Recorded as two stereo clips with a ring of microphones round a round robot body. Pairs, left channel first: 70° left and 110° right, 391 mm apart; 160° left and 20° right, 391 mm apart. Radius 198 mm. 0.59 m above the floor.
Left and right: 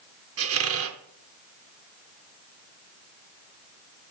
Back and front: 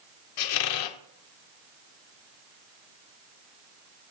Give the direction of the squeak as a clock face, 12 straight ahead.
6 o'clock.